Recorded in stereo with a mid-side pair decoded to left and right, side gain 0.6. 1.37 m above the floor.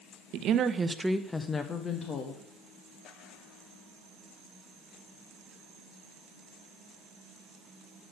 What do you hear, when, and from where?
0.3 s a woman speaking: 65° right, 1.1 m; by 2.4 s 45° left, 1.9 m